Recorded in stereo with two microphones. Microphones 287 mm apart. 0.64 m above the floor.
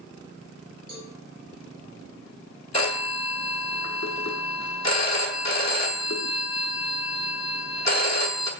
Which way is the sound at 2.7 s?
65° left (ahead or behind).